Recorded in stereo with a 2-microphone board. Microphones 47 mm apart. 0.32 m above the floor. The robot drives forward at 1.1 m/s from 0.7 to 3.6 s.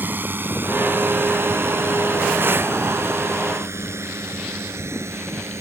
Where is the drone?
45° right (ahead or behind); by 5.6 s 70° right (ahead or behind).